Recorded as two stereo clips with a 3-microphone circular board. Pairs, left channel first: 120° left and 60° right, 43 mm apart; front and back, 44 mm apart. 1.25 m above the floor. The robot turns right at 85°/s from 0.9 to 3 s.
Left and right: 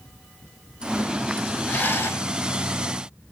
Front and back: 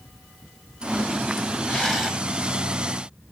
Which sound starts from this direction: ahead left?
A rattle, at 1.7 s.